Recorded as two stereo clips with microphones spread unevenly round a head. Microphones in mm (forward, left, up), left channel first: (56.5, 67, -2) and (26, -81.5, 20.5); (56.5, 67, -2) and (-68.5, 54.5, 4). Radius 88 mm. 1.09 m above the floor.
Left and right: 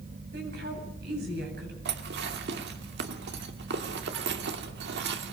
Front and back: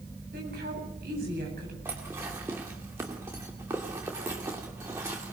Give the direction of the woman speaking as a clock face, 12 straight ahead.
5 o'clock.